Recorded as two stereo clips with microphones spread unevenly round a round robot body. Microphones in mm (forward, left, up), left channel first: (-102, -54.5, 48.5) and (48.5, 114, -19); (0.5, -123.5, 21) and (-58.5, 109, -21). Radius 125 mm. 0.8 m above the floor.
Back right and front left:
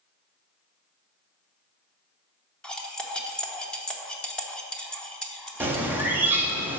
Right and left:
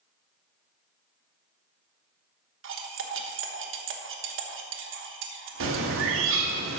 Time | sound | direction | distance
2.6 | cutlery clinking | 140° left | 1.2 m
5.6 | a bird | 120° left | 1.4 m